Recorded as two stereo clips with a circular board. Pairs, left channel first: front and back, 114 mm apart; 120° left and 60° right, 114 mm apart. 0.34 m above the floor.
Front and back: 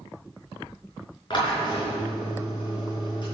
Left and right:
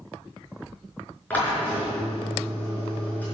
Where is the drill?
45° left, 5 m.